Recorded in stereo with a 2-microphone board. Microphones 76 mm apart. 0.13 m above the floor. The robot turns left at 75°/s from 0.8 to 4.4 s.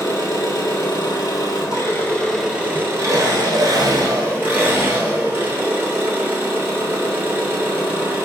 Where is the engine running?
125° left, 1.3 m; by 8.3 s 145° right, 1.3 m.